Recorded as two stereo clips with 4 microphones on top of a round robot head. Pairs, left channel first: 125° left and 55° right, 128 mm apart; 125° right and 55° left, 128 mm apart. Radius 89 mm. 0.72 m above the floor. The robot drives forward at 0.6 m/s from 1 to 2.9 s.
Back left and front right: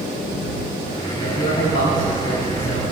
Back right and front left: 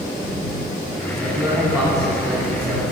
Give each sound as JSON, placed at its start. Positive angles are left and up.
{"t": 1.1, "sound": "a man speaking", "azimuth_deg": 120, "distance_m": 4.5}